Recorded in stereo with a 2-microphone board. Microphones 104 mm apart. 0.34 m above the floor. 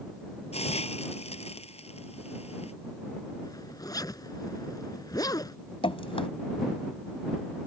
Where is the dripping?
60° left (ahead or behind).